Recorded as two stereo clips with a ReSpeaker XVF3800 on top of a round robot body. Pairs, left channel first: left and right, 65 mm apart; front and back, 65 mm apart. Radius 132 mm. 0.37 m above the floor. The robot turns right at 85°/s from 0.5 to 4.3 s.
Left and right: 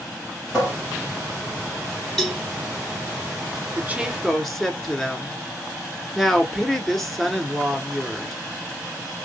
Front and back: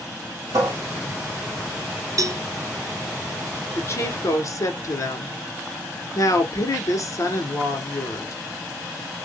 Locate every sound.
0.5 s a cupboard door: 175° left, 2 m; by 0.7 s 170° right, 2 m
2.2 s a cowbell: 175° left, 1.0 m; by 2.4 s 165° right, 1.0 m
3.8 s a woman speaking: 45° right, 1.4 m; by 8.3 s 5° left, 1.4 m